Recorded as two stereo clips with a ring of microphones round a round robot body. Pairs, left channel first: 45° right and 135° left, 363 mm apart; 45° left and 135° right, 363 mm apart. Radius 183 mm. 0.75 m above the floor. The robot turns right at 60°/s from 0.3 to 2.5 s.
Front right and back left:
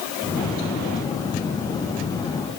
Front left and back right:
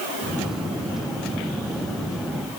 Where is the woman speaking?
No woman speaking in this recording.